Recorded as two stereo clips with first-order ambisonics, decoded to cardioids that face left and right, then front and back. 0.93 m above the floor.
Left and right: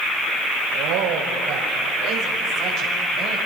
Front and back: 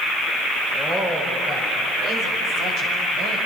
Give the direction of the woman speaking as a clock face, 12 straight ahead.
4 o'clock.